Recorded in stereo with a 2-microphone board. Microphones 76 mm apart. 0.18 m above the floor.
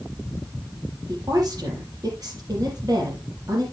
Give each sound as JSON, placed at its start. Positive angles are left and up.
{"t": 1.1, "sound": "a woman speaking", "side_deg": -55, "distance_m": 6.0}